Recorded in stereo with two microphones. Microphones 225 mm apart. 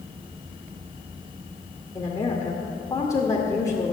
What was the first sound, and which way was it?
A woman speaking, 15° left (ahead or behind).